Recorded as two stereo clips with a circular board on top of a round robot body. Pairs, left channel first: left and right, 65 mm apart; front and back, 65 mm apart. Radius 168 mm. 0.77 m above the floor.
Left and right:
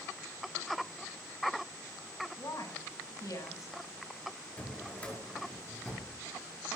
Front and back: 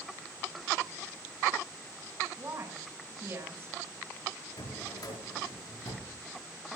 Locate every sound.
2.4 s a woman speaking: 130° left, 7 m
4.6 s a drawer: 20° left, 5.5 m